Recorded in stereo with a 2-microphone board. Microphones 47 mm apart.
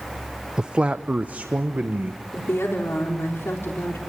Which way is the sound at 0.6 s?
15° right (ahead or behind).